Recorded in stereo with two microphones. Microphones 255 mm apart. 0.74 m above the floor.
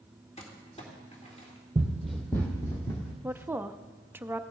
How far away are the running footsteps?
About 1.5 m.